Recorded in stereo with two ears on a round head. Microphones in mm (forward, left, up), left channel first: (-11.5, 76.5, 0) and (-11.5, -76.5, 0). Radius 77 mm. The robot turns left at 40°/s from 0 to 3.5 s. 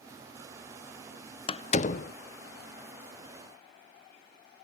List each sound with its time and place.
1.5 s a door slam: 35° left (ahead or behind), 0.5 m; by 2.1 s 55° left (ahead or behind), 0.5 m